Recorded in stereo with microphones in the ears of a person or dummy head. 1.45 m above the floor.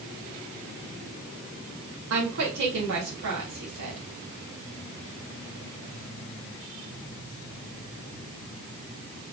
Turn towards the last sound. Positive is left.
turn(degrees=-75)  # may be behind; listen again after turning